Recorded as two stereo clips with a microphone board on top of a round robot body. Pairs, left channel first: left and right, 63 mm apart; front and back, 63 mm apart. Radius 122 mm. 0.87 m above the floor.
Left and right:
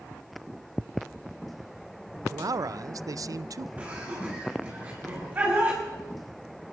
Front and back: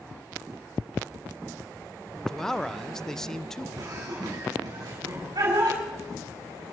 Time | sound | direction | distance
2.3 | a man speaking | 80° right | 0.5 m
3.8 | laughter | 155° right | 5 m